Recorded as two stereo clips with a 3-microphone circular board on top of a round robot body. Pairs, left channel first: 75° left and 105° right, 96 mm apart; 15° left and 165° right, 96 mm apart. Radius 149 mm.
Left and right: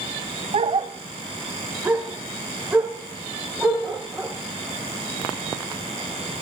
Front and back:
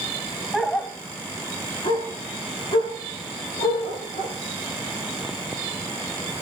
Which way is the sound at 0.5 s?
80° right.